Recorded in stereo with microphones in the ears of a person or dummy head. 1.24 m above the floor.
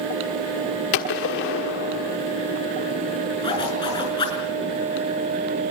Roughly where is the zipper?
Left.